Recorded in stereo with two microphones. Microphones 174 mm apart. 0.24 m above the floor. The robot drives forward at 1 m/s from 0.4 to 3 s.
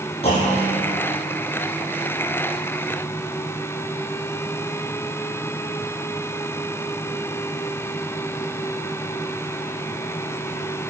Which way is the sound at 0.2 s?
35° left (ahead or behind).